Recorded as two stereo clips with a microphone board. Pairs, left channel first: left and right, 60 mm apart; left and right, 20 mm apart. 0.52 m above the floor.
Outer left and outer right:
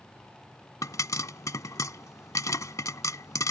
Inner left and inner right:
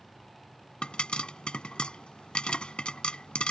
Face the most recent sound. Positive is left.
turn(degrees=65)  # may be behind; listen again after turning